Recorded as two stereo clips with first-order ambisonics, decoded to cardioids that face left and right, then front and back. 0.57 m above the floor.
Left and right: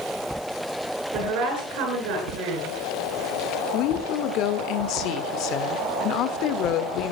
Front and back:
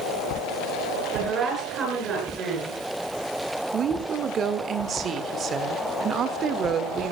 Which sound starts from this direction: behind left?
A woman speaking, at 3.7 s.